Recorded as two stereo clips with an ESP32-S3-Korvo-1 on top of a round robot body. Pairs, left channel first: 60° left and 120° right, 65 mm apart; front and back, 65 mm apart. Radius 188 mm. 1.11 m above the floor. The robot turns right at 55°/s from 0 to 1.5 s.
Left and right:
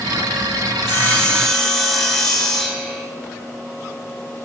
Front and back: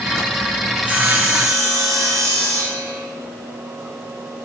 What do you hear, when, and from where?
0.7 s sawing: 105° left, 4 m; by 3.0 s 145° left, 4 m